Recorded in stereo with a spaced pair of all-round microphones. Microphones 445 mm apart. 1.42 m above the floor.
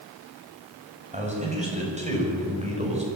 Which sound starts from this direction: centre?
A man speaking, at 1.1 s.